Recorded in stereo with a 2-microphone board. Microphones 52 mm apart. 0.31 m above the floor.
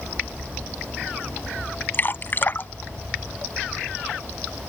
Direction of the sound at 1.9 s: 45° left (ahead or behind).